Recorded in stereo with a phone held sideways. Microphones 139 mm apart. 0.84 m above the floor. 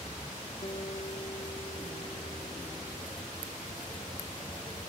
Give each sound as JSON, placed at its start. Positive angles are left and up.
{"t": 0.6, "sound": "a guitar", "side_deg": 40}